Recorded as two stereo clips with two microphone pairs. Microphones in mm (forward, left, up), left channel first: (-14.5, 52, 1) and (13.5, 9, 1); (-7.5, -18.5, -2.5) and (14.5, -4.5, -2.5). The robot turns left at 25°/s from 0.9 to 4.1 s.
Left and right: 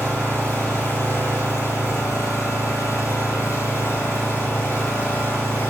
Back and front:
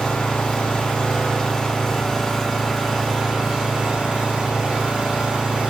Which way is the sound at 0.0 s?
170° left.